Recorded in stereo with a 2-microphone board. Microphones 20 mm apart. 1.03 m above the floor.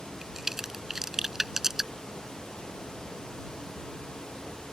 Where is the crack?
20° right (ahead or behind).